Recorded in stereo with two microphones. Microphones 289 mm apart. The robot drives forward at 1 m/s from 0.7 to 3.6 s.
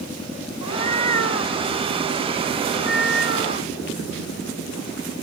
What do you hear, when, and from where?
0.6 s a cat meowing: 65° left (ahead or behind); by 5.2 s 40° left (ahead or behind)